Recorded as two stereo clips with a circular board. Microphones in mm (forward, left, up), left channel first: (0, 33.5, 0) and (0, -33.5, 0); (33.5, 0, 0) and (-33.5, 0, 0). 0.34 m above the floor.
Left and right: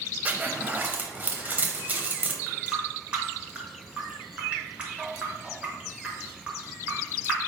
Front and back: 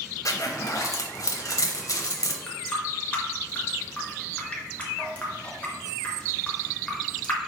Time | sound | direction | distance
0.2 | a zipper | 25° right | 0.6 m
2.5 | a running tap | 45° right | 0.8 m